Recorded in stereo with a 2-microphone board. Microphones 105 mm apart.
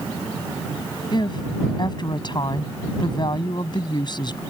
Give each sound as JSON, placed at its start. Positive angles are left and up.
{"t": 1.1, "sound": "a woman speaking", "side_deg": 45}